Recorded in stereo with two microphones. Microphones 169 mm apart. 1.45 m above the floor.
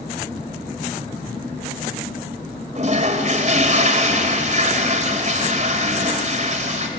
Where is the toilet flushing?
45° right (ahead or behind), 2.5 m.